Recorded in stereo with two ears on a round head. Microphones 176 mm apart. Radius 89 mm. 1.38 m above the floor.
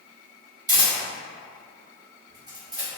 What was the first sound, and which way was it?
A camera shutter, 20° right (ahead or behind).